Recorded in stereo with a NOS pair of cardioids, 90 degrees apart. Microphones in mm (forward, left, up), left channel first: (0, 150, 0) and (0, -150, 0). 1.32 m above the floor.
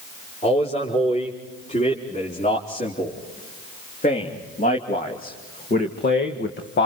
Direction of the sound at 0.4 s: 20° left.